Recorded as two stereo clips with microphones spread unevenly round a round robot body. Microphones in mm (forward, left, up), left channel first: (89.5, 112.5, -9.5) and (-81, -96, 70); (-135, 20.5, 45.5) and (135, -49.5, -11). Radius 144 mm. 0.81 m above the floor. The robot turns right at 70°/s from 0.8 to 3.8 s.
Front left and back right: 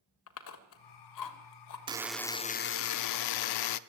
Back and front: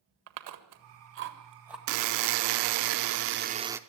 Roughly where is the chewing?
Ahead.